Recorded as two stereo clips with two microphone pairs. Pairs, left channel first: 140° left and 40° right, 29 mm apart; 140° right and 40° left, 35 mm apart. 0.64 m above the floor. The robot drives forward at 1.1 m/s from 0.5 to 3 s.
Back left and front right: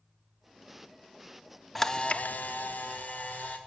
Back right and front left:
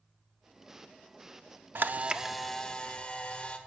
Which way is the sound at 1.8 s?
55° left.